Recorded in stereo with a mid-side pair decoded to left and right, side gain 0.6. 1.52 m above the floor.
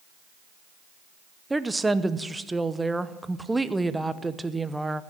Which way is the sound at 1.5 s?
10° right.